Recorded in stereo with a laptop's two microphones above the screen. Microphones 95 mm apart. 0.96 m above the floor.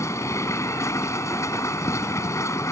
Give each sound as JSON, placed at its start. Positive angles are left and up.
{"t": 0.0, "sound": "a machine running", "side_deg": 35}